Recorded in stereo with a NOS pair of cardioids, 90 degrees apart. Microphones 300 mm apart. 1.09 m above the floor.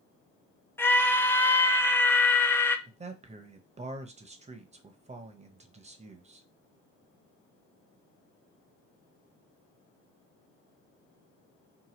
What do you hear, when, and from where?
0.8 s a scream: 5° left, 0.5 m
2.9 s a man speaking: 20° right, 0.7 m